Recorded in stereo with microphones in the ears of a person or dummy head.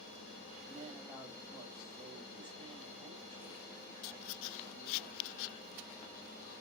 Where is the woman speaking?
10° left (ahead or behind), 5 m.